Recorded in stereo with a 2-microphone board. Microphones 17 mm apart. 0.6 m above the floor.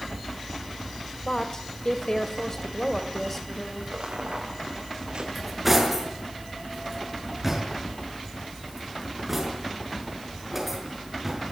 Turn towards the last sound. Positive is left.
turn(degrees=-20)  # may be behind; listen again after turning